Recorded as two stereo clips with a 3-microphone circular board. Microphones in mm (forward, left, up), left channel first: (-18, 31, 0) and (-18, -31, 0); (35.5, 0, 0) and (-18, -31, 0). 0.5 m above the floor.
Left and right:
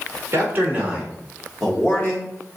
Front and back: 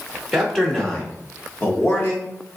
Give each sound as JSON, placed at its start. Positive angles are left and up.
{"t": 0.3, "sound": "a man speaking", "azimuth_deg": -60, "distance_m": 1.4}